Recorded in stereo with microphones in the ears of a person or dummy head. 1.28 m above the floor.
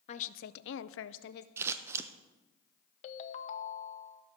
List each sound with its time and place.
0.1 s a woman speaking: 35° left (ahead or behind), 0.6 m; by 1.5 s 60° left (ahead or behind), 0.6 m
1.6 s scissors: 15° right (ahead or behind), 0.6 m
3.0 s a ringtone: 35° left (ahead or behind), 0.7 m